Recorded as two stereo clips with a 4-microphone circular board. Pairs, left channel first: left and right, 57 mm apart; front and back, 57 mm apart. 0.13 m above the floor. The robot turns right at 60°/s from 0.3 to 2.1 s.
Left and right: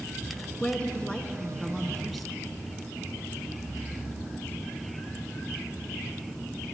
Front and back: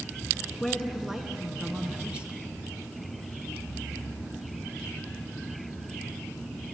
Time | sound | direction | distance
0.6 | a woman speaking | 85° left | 1.1 m